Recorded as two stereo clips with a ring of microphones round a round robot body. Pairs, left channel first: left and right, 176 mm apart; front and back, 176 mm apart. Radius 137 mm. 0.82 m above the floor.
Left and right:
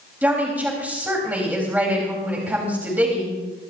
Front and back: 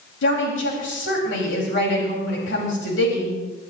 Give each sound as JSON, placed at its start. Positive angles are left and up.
{"t": 0.2, "sound": "a woman speaking", "azimuth_deg": -10, "distance_m": 4.0}